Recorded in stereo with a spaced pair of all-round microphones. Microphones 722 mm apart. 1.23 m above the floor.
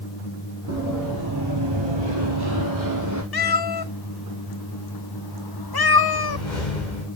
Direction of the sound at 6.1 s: 85° left.